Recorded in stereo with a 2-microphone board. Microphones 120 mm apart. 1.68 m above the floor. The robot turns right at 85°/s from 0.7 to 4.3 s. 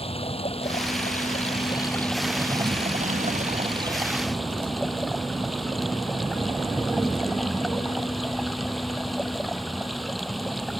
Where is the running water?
55° left; by 10.8 s straight ahead.